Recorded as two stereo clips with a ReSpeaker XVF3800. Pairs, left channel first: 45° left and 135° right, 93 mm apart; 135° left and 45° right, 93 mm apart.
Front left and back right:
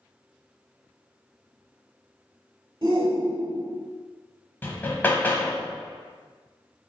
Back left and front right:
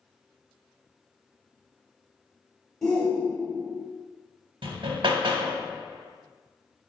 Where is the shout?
150° right, 1.1 m.